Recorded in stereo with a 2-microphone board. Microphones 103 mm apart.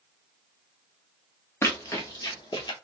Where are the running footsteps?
25° left (ahead or behind), 1.1 m; by 2.7 s 45° left (ahead or behind), 1.5 m.